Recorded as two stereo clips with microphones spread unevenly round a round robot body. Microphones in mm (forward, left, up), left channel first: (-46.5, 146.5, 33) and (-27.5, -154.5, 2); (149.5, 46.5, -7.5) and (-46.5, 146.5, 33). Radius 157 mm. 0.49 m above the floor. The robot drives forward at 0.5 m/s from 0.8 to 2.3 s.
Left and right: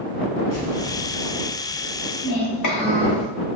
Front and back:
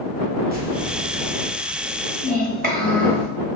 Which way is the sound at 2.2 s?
95° left.